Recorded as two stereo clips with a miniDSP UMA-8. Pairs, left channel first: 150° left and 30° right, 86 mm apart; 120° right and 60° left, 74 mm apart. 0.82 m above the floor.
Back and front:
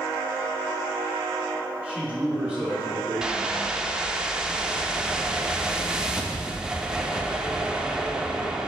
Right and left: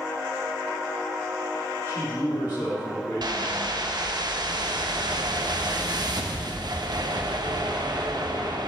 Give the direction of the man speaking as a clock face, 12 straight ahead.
4 o'clock.